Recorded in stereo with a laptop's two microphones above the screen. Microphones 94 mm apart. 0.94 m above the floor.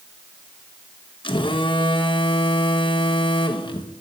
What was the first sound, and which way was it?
A phone buzzing, 60° left (ahead or behind).